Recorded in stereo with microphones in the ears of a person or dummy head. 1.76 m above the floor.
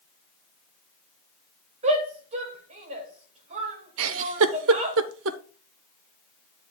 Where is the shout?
40° right (ahead or behind), 2 m.